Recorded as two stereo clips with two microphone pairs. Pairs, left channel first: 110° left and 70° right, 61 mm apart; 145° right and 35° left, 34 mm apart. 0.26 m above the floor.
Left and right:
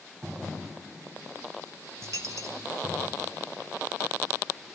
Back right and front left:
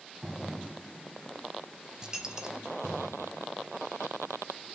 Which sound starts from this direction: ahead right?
A dropped coin, at 2.0 s.